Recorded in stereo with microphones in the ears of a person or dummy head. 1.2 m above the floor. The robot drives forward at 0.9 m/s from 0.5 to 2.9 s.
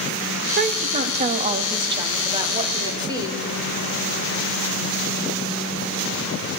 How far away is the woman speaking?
About 1.6 m.